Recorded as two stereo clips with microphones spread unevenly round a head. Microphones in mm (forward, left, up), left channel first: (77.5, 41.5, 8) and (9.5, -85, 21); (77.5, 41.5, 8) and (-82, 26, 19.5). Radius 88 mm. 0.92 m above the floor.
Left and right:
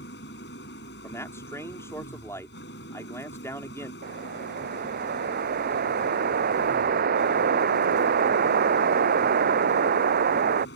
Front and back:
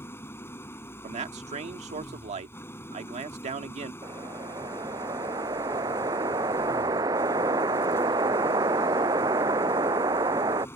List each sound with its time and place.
0.0 s an engine running: 80° left
1.0 s a man speaking: 135° left
4.0 s a whoosh: 105° right